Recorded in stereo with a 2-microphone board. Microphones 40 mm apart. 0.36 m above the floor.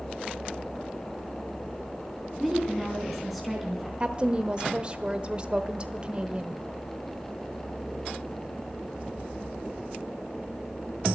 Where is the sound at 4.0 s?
25° right (ahead or behind), 0.9 m.